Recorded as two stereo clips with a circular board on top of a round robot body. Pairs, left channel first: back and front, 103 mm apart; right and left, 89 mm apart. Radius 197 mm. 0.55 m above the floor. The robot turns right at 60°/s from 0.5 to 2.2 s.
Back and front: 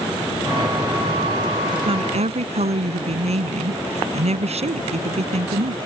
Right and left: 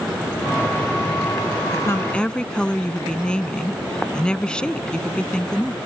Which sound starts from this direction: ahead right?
A woman speaking, at 1.7 s.